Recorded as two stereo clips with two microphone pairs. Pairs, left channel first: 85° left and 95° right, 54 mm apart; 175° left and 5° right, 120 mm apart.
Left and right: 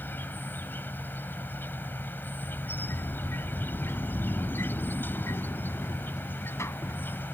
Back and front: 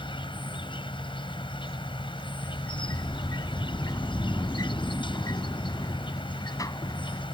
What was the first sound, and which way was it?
An insect, 135° left.